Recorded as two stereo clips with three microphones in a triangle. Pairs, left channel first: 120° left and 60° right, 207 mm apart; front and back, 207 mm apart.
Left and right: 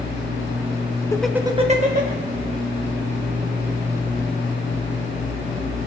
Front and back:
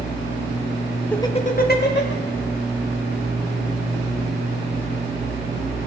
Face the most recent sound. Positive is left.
turn(degrees=-20)